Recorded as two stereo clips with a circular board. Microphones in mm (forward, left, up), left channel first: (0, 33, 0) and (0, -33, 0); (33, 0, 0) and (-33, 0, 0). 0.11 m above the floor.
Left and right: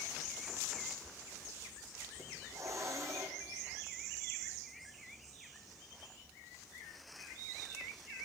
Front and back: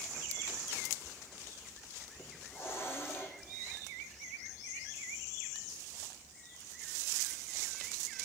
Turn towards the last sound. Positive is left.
turn(degrees=-50)